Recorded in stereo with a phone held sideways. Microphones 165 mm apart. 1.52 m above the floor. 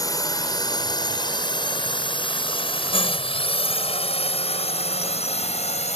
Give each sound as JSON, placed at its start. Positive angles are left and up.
{"t": 0.0, "sound": "a drone", "side_deg": 20}